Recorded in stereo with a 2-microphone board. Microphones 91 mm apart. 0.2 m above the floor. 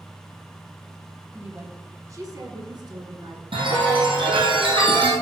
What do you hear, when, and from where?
1.3 s a woman speaking: 15° right (ahead or behind), 1.0 m; by 3.4 s 55° right (ahead or behind), 2 m
3.5 s a chime: 70° right (ahead or behind), 2.5 m